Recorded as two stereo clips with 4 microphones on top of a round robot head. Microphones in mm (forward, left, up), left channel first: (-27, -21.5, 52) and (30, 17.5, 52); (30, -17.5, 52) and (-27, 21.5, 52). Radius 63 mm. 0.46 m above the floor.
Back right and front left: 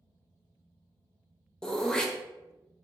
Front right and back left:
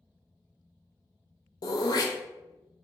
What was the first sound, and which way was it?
Throat clearing, 65° right.